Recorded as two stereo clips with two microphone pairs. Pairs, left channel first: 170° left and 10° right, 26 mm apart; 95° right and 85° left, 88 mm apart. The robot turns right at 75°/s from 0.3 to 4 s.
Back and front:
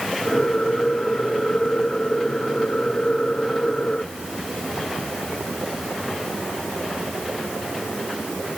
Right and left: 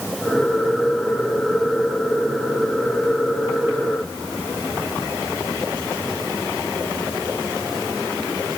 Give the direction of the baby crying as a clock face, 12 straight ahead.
No baby crying in this recording.